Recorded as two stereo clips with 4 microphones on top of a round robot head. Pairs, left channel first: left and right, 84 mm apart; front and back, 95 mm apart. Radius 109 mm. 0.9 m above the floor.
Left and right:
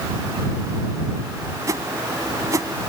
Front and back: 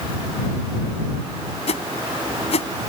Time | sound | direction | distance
1.7 | a whoosh | 30° right | ?